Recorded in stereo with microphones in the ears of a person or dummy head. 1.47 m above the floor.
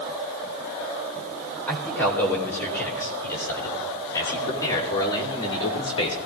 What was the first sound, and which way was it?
A man speaking, 5° left (ahead or behind).